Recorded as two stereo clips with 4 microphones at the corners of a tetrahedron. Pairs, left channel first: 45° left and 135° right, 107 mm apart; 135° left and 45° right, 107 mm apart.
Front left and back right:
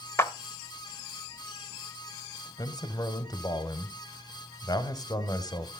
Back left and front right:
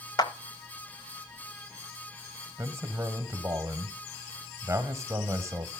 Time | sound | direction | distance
0.2 | a clap | 105° left | 0.9 m
2.6 | a man speaking | 5° left | 1.1 m